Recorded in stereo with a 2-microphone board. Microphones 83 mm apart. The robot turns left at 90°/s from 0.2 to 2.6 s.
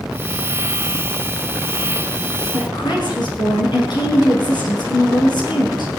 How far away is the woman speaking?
About 6 m.